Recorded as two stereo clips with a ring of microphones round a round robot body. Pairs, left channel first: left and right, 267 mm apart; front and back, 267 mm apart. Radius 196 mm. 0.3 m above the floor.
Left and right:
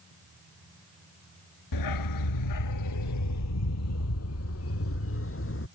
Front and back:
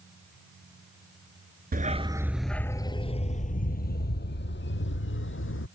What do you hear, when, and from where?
1.7 s a dog barking: 120° left; by 5.7 s 45° left